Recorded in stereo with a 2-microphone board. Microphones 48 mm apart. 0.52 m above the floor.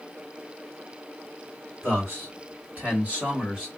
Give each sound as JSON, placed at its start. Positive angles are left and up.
{"t": 1.8, "sound": "a man speaking", "side_deg": -50, "distance_m": 1.9}